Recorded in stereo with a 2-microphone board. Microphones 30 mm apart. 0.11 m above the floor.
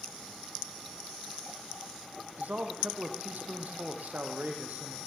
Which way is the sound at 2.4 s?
65° right (ahead or behind).